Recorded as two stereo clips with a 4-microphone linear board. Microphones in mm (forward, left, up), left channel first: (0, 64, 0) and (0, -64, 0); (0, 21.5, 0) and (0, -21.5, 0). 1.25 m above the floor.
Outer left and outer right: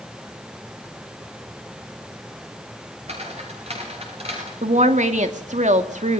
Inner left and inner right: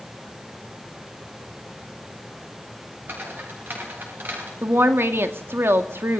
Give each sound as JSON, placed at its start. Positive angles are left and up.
{"t": 3.1, "sound": "footsteps", "side_deg": -55, "distance_m": 9.0}
{"t": 4.6, "sound": "a woman speaking", "side_deg": -70, "distance_m": 2.5}